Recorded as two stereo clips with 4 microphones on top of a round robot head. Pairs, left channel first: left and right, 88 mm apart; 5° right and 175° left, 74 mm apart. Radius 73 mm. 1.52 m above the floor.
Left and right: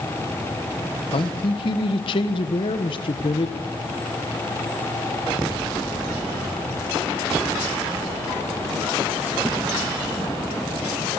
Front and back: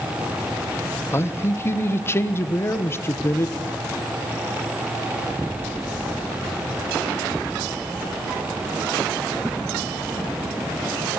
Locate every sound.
1.1 s a man speaking: 55° left, 1.4 m